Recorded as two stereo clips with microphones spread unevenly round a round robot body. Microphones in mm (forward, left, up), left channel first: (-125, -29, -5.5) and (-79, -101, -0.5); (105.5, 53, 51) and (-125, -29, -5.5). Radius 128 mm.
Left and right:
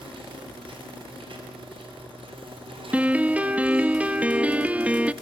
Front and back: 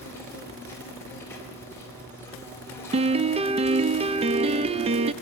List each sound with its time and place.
0.0 s an insect: 65° right, 4 m
2.9 s a piano: 130° right, 0.6 m